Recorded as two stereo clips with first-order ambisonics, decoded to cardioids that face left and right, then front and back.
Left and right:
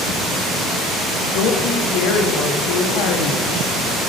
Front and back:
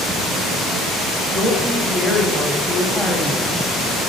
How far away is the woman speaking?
About 1.1 m.